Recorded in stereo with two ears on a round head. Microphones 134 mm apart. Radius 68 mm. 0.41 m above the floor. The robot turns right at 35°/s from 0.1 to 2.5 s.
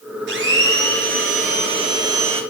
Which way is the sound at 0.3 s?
90° right.